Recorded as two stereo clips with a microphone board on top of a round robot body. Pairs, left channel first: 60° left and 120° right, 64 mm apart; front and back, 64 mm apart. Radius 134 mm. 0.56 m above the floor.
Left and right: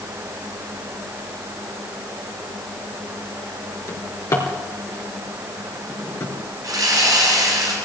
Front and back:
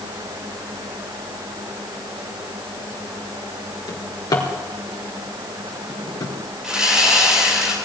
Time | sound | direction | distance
3.9 | a drawer | 20° left | 2.5 m
6.6 | sawing | 100° right | 10 m